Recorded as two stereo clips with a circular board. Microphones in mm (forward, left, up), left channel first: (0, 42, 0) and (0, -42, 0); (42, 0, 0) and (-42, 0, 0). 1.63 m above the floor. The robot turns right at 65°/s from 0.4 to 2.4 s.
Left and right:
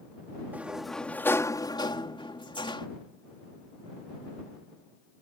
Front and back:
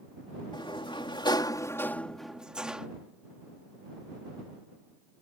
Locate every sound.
0.5 s a sliding door: 20° right; by 2.9 s 100° left